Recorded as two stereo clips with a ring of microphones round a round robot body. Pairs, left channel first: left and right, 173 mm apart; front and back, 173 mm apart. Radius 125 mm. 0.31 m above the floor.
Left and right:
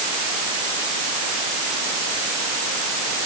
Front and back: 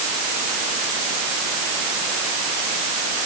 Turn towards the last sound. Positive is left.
No sound to turn to.